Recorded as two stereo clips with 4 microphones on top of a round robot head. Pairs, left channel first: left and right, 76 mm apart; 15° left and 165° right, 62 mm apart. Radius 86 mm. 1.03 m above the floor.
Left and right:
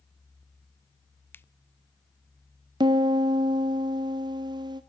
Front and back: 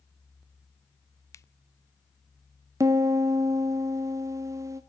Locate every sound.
1.3 s a finger snap: 30° left, 0.6 m
2.8 s a piano: 125° right, 1.3 m